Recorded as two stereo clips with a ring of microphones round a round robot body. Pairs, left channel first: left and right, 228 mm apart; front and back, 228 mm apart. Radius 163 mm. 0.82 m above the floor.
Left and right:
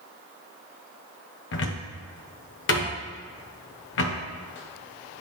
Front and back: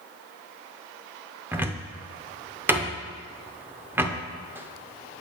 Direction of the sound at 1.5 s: 100° left.